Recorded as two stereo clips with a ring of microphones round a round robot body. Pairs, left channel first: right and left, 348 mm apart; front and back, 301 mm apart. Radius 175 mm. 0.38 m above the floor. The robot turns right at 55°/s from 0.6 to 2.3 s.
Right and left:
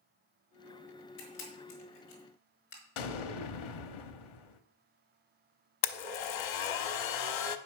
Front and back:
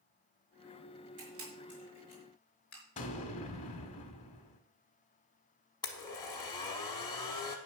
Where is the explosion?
70° right, 0.9 m.